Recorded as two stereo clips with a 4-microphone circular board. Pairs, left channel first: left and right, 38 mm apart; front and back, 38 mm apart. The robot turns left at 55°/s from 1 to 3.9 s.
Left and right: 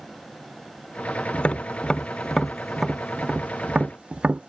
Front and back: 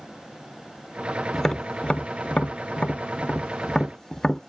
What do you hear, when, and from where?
1.3 s tapping: 70° left; by 4.5 s 70° right